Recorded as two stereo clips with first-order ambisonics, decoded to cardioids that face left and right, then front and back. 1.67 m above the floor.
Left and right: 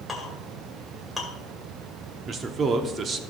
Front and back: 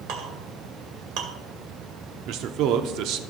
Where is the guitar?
I don't hear a guitar.